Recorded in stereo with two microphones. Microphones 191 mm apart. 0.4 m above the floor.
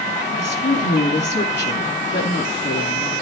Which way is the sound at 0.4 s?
65° left (ahead or behind).